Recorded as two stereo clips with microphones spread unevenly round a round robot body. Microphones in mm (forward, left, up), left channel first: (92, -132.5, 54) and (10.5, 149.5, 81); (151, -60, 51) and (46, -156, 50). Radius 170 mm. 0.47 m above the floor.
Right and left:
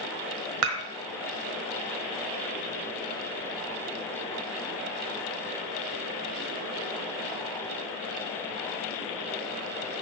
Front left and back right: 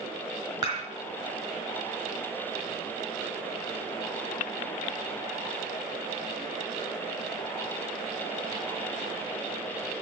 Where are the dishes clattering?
150° left, 1.5 m.